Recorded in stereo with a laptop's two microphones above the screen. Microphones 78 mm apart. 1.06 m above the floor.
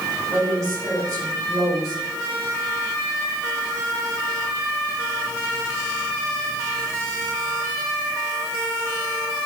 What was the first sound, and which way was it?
A woman speaking, 40° right (ahead or behind).